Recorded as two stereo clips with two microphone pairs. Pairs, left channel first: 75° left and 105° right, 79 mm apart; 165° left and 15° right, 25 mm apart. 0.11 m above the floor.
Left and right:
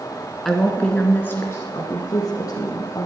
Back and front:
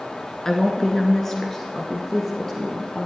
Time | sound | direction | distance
0.5 | a woman speaking | 160° left | 1.3 m